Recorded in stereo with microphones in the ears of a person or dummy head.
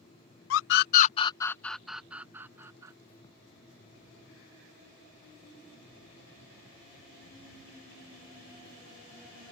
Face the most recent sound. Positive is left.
turn(degrees=-20)  # may be behind; listen again after turning